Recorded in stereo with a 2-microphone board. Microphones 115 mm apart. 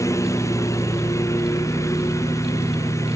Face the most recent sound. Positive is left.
turn(degrees=25)  # may be behind; listen again after turning